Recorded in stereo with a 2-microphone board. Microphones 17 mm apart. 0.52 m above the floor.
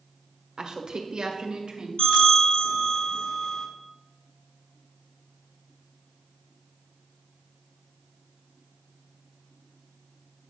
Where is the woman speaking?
50° right (ahead or behind), 1.3 m; by 1.9 s 65° right (ahead or behind), 2 m.